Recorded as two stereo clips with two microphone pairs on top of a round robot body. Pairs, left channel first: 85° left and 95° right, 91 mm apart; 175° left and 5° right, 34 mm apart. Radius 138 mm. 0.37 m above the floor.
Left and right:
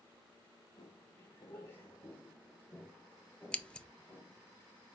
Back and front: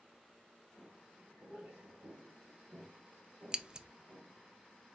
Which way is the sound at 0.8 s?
70° left.